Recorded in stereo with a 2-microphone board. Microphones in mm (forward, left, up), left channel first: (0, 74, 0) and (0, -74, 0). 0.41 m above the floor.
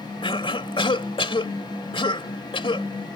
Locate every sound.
0.2 s a cough: 35° left (ahead or behind)